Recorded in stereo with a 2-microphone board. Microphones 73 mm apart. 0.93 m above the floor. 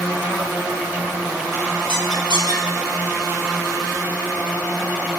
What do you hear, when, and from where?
1.9 s a squeak: 85° right, 6.5 m